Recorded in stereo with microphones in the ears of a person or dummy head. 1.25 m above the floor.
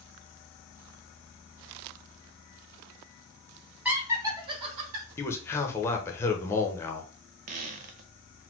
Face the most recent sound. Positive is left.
turn(degrees=-40)  # may be behind; listen again after turning